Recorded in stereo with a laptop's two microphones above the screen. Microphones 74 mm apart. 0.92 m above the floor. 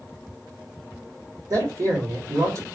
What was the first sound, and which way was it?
A man speaking, 45° right (ahead or behind).